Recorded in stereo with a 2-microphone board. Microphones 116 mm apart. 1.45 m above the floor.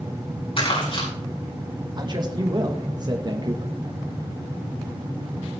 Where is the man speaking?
35° right (ahead or behind), 1.5 m.